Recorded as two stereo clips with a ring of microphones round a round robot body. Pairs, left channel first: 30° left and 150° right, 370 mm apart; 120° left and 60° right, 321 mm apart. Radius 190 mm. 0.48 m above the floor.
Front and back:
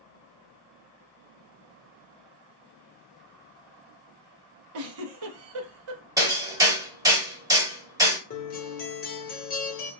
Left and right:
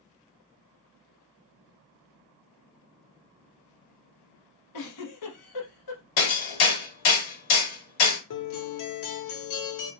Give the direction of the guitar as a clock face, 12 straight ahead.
9 o'clock.